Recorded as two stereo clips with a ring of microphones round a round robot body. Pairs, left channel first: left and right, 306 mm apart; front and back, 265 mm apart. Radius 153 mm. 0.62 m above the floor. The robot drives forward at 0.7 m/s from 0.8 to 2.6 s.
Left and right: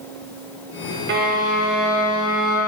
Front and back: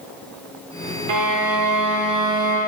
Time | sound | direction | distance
1.1 | a violin | 150° right | 0.7 m